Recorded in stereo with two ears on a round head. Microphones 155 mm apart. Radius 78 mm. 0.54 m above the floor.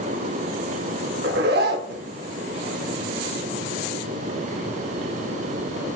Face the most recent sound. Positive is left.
turn(degrees=-60)  # may be behind; listen again after turning